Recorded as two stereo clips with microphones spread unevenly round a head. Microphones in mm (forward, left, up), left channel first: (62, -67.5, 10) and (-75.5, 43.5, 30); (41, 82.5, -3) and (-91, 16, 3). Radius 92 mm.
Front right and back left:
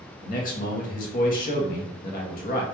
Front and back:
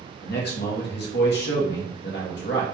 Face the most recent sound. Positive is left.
turn(degrees=5)